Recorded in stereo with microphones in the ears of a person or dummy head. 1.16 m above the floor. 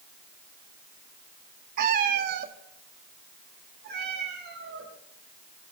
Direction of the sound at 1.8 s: 45° right (ahead or behind).